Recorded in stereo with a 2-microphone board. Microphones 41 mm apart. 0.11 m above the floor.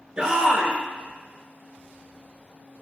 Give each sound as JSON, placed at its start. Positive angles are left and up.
{"t": 0.2, "sound": "a shout", "side_deg": -20, "distance_m": 1.5}